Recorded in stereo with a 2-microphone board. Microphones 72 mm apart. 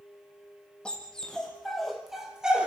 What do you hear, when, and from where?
0.8 s a dog barking: 10° left (ahead or behind), 4.5 m; by 2.7 s 15° right (ahead or behind), 3 m